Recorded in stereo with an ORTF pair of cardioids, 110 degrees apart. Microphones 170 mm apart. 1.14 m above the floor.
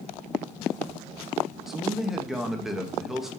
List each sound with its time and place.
1.7 s a man speaking: 5° right, 1.5 m